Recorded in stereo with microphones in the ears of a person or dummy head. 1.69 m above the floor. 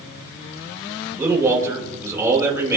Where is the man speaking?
15° right (ahead or behind), 5 m.